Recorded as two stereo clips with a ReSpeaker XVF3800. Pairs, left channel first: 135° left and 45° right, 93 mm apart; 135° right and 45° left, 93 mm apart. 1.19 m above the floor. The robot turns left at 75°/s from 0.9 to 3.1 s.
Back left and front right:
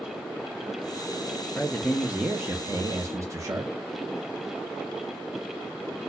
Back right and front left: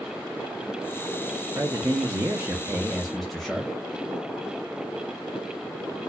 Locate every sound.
1.6 s a man speaking: 70° left, 0.7 m; by 3.7 s 45° right, 0.7 m